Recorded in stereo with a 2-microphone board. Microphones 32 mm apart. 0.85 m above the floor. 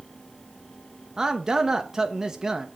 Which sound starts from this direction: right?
A man speaking, at 1.2 s.